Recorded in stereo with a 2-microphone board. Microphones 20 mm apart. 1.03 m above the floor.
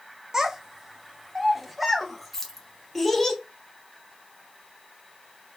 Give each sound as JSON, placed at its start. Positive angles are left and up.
{"t": 0.3, "sound": "a child speaking", "side_deg": -30, "distance_m": 0.8}
{"t": 2.3, "sound": "keys jangling", "side_deg": 15, "distance_m": 0.9}